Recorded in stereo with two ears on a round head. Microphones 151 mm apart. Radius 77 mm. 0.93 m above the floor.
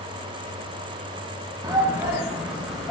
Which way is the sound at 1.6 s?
20° right (ahead or behind).